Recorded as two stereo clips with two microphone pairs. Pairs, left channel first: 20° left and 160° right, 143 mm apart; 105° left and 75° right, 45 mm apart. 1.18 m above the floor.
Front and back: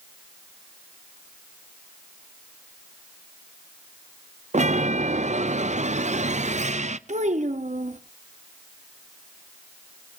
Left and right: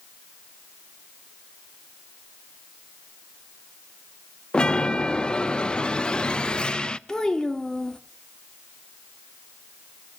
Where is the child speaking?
Straight behind, 1.2 m.